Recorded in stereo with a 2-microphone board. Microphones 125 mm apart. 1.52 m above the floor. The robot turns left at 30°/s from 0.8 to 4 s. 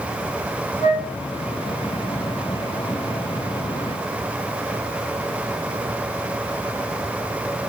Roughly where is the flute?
Left.